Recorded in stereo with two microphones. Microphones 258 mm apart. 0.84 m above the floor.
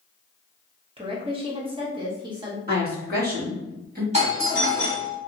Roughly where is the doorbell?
Right.